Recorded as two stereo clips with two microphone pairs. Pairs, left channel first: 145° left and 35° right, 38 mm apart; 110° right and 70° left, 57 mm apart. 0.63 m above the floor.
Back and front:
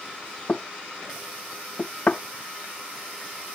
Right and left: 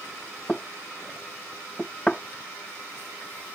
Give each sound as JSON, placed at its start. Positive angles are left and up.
{"t": 0.5, "sound": "knocking", "azimuth_deg": 180}